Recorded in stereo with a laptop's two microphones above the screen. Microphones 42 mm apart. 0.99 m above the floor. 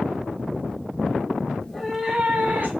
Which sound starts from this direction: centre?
A cat meowing, at 1.6 s.